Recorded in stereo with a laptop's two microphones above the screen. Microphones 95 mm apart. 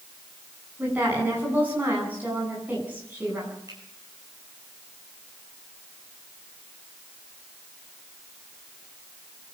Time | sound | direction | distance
0.8 | a woman speaking | 20° right (ahead or behind) | 9 m
3.7 | a finger snap | 40° right (ahead or behind) | 8 m